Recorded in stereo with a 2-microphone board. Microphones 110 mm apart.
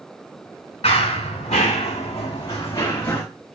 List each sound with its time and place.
0.8 s running footsteps: 70° left (ahead or behind), 1.2 m; by 3.2 s 25° left (ahead or behind), 1.3 m